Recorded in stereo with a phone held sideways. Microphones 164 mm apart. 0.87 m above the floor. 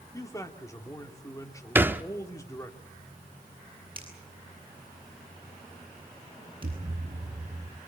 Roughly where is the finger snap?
Right.